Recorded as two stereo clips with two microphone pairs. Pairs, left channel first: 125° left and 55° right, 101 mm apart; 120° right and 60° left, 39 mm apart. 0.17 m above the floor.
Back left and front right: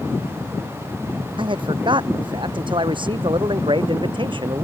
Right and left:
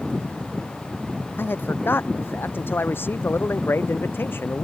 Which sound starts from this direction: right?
A man speaking, at 1.4 s.